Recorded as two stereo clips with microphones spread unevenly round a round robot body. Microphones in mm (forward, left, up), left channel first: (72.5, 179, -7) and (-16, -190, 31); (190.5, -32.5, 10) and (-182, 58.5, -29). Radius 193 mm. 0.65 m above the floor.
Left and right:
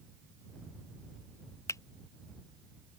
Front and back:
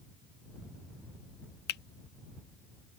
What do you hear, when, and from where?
1.7 s a finger snap: 20° left